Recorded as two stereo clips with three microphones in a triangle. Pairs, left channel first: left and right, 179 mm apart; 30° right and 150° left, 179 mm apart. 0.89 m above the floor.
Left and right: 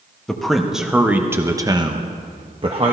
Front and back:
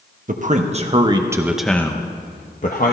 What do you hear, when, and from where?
0.3 s a man speaking: 175° left, 1.2 m; by 2.9 s 40° right, 1.1 m